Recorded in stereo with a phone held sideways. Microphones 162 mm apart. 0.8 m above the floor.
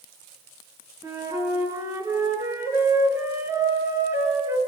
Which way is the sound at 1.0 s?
15° right (ahead or behind).